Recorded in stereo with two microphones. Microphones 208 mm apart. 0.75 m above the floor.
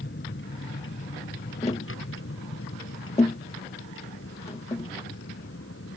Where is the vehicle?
60° left (ahead or behind); by 6.0 s 90° left.